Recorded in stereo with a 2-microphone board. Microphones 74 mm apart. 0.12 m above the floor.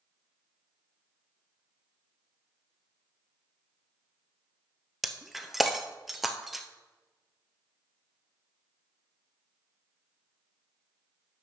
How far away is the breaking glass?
About 0.7 m.